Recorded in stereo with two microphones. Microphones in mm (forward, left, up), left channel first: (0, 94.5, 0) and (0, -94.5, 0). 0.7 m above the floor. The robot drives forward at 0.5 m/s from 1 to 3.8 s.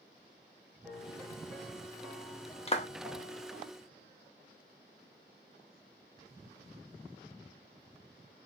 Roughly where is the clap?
Left.